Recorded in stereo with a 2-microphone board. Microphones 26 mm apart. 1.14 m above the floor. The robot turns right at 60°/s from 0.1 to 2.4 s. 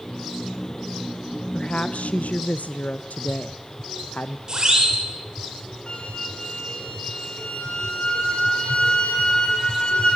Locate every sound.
1.5 s a woman speaking: 35° left, 0.6 m; by 4.4 s 90° left, 0.6 m
4.5 s a siren: 30° right (ahead or behind), 6.5 m
5.9 s a flute: 45° left (ahead or behind), 5 m